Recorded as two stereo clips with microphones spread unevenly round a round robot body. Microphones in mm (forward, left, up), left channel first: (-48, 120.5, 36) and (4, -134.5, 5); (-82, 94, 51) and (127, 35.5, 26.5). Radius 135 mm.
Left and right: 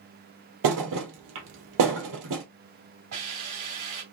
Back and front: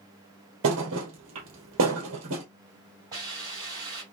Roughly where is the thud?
Ahead right.